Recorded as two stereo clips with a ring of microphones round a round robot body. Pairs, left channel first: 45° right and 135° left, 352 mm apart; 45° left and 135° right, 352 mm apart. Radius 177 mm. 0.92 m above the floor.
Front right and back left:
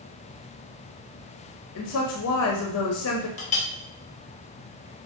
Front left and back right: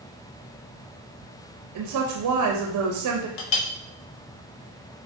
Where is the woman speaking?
95° right, 0.7 m.